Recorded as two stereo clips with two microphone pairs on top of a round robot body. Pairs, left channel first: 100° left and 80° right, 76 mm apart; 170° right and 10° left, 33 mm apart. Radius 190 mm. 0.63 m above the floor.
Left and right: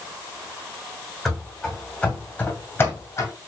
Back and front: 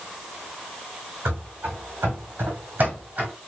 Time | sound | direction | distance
1.2 | running footsteps | 15° left | 2.5 m